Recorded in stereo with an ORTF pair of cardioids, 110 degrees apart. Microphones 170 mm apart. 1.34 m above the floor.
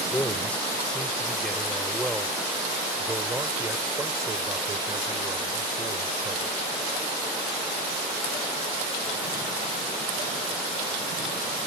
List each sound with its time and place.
0.1 s a man speaking: 10° left; by 6.6 s 35° right